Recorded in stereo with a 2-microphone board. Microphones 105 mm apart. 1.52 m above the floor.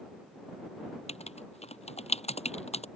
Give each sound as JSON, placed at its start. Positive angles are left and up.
{"t": 1.1, "sound": "writing", "side_deg": 85}